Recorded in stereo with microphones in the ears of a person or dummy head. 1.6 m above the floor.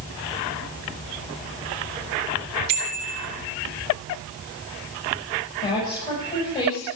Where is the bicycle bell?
60° right (ahead or behind), 2.5 m.